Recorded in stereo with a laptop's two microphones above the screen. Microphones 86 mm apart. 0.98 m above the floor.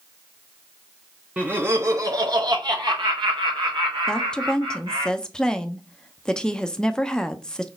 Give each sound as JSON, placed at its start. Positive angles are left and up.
{"t": 1.4, "sound": "laughter", "side_deg": -15, "distance_m": 0.6}
{"t": 4.1, "sound": "a woman speaking", "side_deg": 10, "distance_m": 0.6}